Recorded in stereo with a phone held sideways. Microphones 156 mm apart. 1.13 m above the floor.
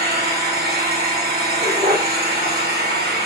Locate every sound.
0.0 s an engine running: 80° right, 1.8 m
1.6 s a dog barking: 50° right (ahead or behind), 1.7 m